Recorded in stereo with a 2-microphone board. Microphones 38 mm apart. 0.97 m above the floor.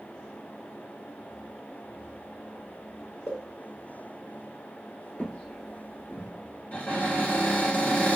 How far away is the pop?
About 0.6 m.